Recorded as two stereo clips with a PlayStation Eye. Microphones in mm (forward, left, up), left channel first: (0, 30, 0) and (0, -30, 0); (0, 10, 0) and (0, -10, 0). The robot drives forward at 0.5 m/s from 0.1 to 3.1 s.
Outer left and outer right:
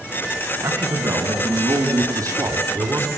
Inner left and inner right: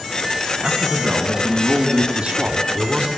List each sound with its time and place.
0.6 s a man speaking: 75° right (ahead or behind), 4 m; by 3.1 s 65° right (ahead or behind), 4.5 m